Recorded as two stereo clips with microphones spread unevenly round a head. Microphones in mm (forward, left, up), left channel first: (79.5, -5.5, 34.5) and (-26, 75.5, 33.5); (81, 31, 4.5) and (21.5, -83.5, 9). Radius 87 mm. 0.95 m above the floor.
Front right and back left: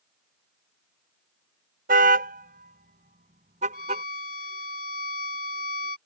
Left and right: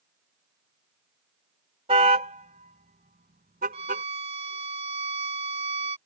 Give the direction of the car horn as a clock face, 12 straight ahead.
6 o'clock.